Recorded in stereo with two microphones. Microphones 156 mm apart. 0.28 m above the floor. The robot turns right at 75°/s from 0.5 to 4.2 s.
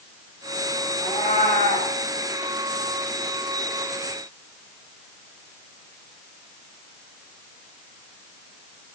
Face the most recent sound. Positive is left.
turn(degrees=-100)